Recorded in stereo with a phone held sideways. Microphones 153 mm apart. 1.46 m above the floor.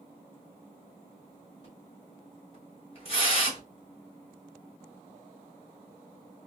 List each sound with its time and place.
1.6 s a splash: 40° left (ahead or behind), 3 m